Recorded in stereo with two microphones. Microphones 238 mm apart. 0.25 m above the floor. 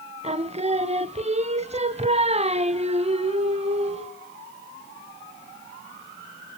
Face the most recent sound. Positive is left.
turn(degrees=-30)  # may be behind; listen again after turning